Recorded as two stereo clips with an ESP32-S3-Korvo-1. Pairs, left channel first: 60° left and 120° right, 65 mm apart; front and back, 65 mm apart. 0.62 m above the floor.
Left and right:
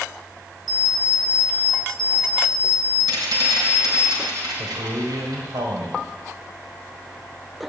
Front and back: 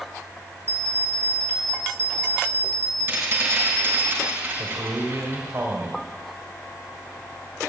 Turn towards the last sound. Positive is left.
turn(degrees=-130)